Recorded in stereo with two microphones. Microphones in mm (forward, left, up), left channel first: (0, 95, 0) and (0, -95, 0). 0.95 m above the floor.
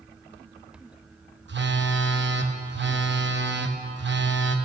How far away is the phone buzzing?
About 0.8 m.